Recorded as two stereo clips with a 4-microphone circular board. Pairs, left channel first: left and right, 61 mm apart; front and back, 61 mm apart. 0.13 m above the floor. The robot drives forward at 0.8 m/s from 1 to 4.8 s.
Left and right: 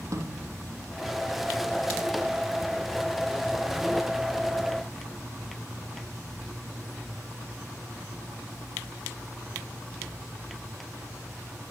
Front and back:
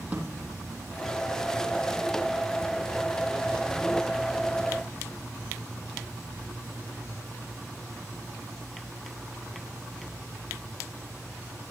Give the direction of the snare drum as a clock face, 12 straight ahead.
4 o'clock.